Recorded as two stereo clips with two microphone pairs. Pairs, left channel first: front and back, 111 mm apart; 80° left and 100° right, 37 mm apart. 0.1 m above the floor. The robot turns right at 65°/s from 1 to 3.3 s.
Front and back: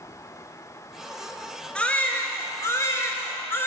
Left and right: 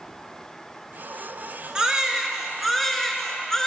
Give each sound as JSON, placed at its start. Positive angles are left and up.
{"t": 1.8, "sound": "a baby crying", "azimuth_deg": -70, "distance_m": 0.9}